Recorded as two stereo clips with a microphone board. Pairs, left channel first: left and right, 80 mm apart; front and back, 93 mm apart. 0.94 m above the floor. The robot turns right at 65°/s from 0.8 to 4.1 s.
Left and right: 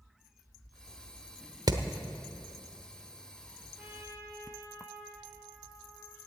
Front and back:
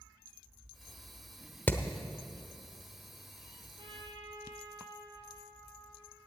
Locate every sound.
1.7 s hammering: 65° right, 0.9 m; by 1.8 s 60° right, 0.9 m
3.8 s a trumpet: 165° right, 2.5 m; by 6.3 s 145° right, 2.5 m